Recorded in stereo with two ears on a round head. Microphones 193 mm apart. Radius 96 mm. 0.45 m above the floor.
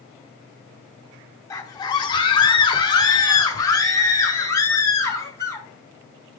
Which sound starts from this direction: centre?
A scream, at 1.5 s.